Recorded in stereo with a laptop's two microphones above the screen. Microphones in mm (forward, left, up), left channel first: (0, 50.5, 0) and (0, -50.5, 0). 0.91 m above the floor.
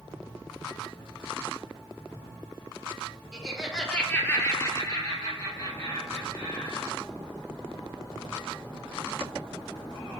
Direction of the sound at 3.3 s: 5° right (ahead or behind).